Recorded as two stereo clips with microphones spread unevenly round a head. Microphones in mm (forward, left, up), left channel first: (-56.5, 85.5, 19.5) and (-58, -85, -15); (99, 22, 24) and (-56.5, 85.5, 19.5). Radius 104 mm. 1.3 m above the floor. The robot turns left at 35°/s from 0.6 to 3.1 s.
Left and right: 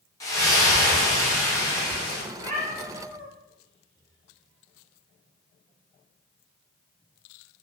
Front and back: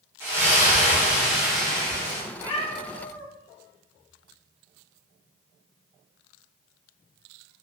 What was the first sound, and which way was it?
A splash, 95° left.